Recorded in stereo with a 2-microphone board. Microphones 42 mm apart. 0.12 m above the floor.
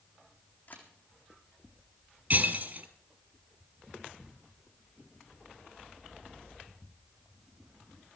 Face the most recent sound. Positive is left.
turn(degrees=-50)  # may be behind; listen again after turning